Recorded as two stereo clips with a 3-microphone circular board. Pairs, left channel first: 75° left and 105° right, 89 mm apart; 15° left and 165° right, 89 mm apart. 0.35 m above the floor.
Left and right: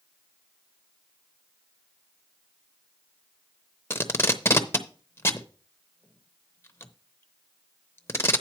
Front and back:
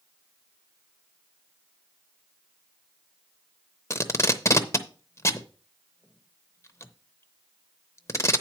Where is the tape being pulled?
35° left, 0.7 m.